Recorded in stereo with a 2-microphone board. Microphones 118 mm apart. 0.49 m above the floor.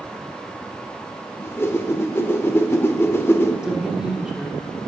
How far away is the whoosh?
About 0.8 m.